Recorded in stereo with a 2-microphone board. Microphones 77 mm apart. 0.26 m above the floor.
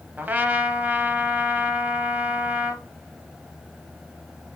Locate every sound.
0.2 s a trumpet: 25° right (ahead or behind), 0.6 m